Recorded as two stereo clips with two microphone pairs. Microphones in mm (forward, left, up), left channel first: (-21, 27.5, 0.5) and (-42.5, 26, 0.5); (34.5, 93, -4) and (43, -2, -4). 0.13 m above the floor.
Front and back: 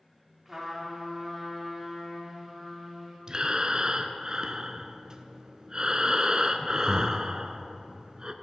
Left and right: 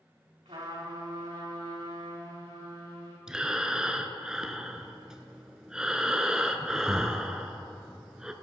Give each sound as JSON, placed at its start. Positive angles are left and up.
{"t": 0.5, "sound": "a trumpet", "azimuth_deg": -90, "distance_m": 4.0}
{"t": 3.3, "sound": "breathing", "azimuth_deg": -165, "distance_m": 0.6}